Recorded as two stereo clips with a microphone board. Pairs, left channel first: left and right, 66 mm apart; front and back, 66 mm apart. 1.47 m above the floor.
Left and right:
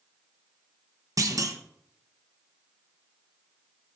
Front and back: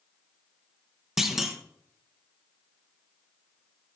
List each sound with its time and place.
1.2 s a clunk: 95° right, 0.9 m